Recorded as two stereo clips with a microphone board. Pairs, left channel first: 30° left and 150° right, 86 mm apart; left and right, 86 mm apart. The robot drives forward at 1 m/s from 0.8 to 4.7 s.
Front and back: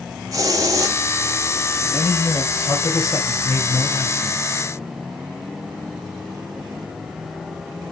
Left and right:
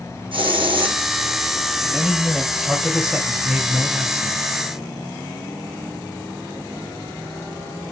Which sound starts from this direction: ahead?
A man speaking, at 1.8 s.